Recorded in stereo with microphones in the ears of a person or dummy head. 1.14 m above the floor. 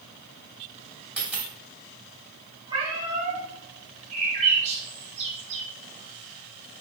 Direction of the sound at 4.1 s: 40° right (ahead or behind).